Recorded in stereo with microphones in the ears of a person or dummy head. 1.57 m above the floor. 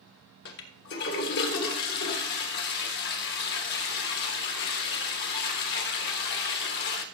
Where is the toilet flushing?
60° left (ahead or behind), 1.4 m.